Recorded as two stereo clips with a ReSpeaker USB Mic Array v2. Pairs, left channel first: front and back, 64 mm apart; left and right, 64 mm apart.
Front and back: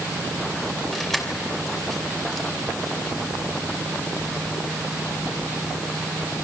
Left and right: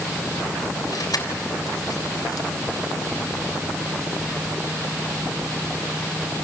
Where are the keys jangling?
85° left, 3 m.